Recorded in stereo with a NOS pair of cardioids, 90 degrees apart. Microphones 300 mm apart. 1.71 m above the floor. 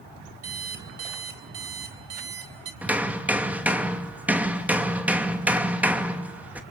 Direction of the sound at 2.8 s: 5° right.